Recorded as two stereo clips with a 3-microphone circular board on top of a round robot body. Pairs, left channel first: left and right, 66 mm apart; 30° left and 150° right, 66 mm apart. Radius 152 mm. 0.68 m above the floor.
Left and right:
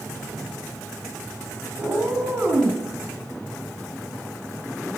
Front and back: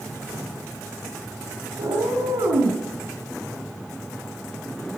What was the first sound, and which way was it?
A cat meowing, 165° right.